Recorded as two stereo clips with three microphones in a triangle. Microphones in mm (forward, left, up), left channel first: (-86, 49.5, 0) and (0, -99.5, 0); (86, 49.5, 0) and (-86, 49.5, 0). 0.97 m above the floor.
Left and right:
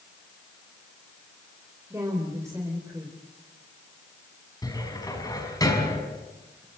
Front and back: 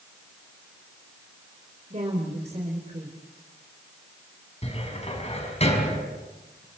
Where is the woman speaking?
130° right, 3 m.